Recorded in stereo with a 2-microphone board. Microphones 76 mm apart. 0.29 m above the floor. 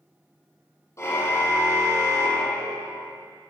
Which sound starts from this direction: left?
A car horn, at 1.0 s.